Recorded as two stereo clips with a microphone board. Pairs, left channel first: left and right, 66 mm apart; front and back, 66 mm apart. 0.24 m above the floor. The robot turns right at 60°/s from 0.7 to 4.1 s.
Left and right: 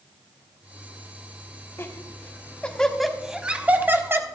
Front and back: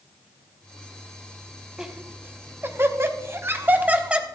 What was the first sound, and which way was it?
Laughter, 105° left.